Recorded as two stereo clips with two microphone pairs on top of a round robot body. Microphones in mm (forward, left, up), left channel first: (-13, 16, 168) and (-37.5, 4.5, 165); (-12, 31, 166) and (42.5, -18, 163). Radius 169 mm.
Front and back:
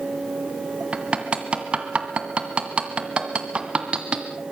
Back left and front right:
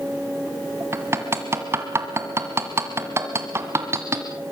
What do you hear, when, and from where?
0.9 s hammering: 100° right, 1.7 m